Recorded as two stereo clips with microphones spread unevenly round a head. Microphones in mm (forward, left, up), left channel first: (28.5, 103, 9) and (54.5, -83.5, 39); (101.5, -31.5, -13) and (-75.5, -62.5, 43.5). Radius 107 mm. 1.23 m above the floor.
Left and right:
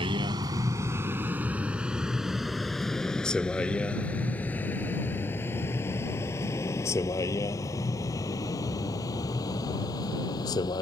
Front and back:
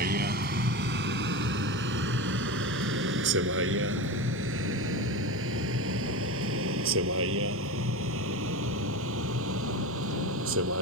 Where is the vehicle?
145° right; by 10.8 s 175° left.